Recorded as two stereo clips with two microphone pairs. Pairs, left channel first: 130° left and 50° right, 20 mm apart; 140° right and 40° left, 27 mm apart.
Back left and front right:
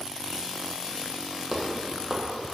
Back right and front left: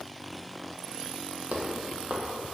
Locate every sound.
1.5 s footsteps: 40° left, 0.8 m